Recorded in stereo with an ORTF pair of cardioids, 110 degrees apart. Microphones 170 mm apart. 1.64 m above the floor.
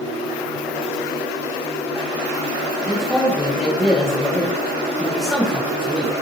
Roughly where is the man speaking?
Ahead.